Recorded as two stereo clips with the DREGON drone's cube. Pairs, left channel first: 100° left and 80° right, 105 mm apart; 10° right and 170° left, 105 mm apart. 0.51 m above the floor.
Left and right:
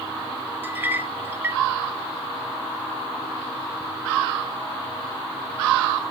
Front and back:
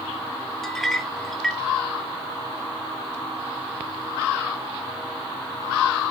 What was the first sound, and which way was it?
A clink, 90° right.